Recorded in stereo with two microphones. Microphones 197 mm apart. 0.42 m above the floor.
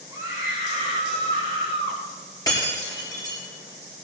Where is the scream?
20° right (ahead or behind), 2.5 m; by 2.0 s 25° right (ahead or behind), 4.5 m.